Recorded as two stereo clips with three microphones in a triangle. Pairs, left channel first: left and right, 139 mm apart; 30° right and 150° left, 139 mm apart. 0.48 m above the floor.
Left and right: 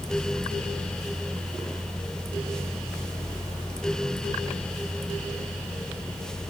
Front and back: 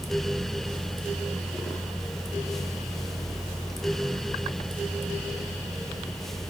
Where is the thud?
I don't hear a thud.